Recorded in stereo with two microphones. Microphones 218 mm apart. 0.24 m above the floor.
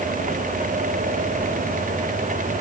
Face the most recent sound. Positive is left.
No sound to turn to.